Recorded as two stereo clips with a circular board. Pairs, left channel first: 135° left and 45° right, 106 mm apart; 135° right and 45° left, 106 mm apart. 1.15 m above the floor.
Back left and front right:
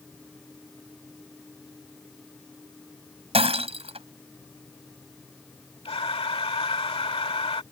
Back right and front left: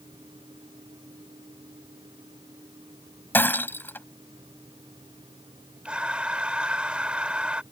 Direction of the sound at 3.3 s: 65° right.